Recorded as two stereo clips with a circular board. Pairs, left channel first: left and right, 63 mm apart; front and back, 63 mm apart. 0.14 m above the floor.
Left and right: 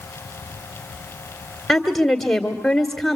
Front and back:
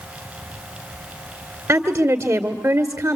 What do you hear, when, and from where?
1.7 s a woman speaking: straight behind, 2.0 m